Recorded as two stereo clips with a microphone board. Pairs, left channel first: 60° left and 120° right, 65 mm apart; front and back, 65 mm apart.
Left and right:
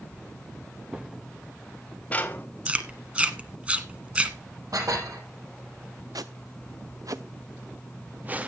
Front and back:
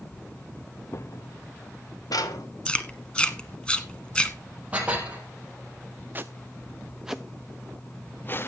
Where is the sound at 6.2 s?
120° right, 1.1 m; by 8.5 s 50° right, 0.9 m.